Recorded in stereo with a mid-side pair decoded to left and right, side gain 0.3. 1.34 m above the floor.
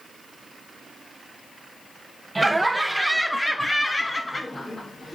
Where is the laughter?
20° right, 1.1 m; by 5.2 s 45° left, 1.6 m.